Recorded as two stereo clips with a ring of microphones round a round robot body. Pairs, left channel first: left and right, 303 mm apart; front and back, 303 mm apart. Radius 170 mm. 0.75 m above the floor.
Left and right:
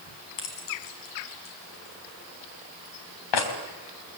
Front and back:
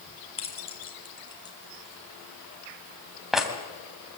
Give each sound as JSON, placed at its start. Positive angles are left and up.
{"t": 0.4, "sound": "keys jangling", "azimuth_deg": 70, "distance_m": 4.5}